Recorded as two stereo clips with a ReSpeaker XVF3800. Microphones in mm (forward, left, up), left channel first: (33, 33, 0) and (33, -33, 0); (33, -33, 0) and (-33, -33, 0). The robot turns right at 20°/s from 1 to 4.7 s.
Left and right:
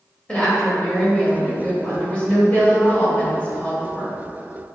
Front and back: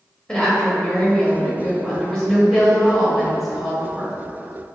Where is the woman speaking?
45° left, 1.2 m; by 4.2 s 110° left, 1.2 m.